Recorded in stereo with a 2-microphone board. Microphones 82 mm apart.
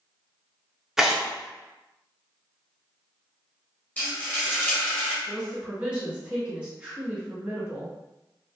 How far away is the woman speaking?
About 1.6 m.